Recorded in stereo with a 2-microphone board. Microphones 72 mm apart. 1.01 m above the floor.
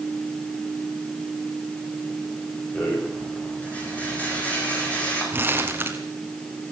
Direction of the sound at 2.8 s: 20° left (ahead or behind).